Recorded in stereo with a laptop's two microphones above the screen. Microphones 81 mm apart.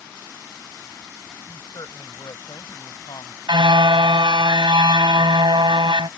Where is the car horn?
80° right.